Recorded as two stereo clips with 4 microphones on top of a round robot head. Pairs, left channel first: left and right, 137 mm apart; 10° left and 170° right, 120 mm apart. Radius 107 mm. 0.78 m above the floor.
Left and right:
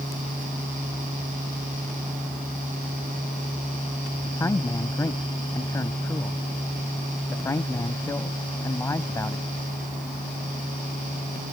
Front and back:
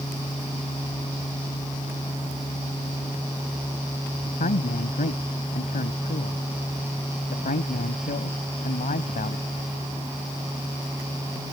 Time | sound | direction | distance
4.2 | a man speaking | 20° left | ?